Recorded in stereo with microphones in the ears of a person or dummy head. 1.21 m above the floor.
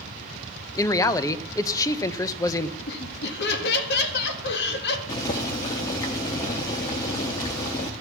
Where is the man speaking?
20° left (ahead or behind), 0.7 m.